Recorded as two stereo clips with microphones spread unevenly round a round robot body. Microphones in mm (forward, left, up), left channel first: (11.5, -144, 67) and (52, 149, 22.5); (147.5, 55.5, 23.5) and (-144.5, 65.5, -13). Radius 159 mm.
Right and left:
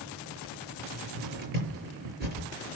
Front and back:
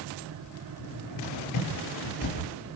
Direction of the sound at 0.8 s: 20° left.